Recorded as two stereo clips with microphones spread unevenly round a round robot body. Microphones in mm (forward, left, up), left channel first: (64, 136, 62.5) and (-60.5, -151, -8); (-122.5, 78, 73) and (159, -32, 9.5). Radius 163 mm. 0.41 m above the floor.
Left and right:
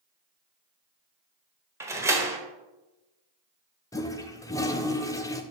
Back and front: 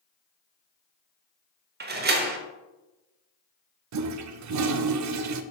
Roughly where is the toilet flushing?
Ahead.